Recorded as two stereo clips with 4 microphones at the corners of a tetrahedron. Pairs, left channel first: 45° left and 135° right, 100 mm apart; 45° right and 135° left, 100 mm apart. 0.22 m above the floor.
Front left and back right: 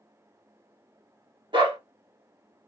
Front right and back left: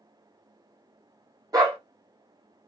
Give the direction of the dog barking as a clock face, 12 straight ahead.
6 o'clock.